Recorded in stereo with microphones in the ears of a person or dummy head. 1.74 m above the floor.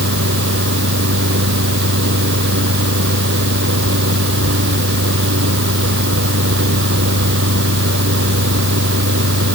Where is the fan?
60° right (ahead or behind).